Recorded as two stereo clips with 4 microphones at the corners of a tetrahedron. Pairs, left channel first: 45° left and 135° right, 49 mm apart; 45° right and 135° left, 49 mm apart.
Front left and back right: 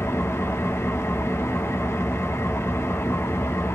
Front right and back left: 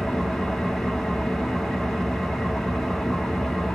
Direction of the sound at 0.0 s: 35° left.